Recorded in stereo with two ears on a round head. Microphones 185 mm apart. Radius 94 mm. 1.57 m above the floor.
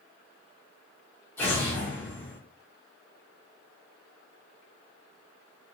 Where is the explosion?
10° left (ahead or behind), 1.3 m.